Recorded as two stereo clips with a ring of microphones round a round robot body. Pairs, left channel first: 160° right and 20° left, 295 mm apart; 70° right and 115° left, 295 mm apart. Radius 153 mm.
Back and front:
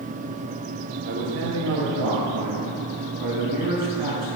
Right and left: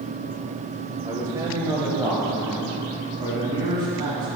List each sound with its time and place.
1.1 s a man speaking: 35° left, 1.1 m